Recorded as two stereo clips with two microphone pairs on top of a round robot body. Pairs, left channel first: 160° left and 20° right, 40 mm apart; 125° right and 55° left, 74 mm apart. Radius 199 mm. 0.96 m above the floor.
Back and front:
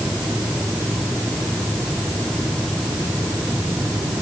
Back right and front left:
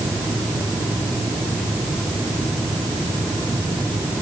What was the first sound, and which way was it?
Only background noise.